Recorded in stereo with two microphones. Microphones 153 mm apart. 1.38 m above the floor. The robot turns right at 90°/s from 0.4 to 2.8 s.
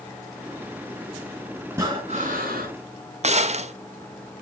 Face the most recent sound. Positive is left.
turn(degrees=-45)  # may be behind; listen again after turning